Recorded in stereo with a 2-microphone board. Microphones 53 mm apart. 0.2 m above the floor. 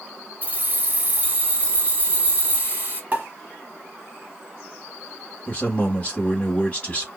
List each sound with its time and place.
0.4 s keys jangling: 35° right (ahead or behind), 1.1 m
3.1 s a pop: 30° right (ahead or behind), 1.4 m
5.5 s a man speaking: 25° left (ahead or behind), 1.0 m